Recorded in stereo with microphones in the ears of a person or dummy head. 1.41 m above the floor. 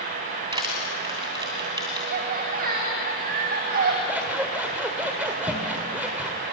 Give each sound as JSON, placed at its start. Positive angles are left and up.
{"t": 0.5, "sound": "crushing", "side_deg": -25, "distance_m": 2.0}
{"t": 2.1, "sound": "laughter", "side_deg": -50, "distance_m": 1.9}
{"t": 4.1, "sound": "scissors", "side_deg": -10, "distance_m": 1.6}